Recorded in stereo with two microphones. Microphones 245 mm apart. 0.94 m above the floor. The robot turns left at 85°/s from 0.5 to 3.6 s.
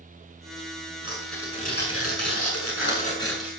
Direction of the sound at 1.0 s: 160° right.